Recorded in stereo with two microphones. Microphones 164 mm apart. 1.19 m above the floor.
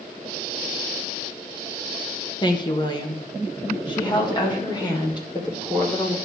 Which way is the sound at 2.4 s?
25° left (ahead or behind).